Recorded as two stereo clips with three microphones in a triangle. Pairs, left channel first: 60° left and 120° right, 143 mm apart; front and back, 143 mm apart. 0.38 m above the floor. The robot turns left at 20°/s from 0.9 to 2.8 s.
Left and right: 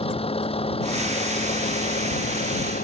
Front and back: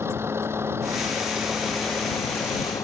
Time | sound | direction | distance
0.0 | a vehicle | 105° left | ?